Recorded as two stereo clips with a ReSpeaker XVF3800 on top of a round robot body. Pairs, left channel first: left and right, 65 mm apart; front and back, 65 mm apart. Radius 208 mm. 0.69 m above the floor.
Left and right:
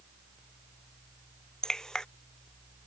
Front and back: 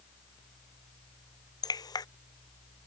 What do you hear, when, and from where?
1.6 s dripping: 10° left